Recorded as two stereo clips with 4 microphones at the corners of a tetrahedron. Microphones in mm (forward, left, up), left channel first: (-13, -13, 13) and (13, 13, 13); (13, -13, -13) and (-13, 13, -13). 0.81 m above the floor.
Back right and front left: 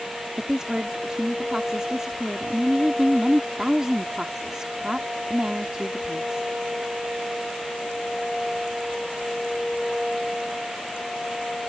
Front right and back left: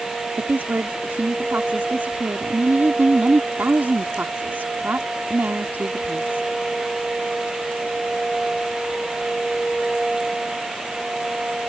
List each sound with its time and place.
0.4 s a woman speaking: 115° left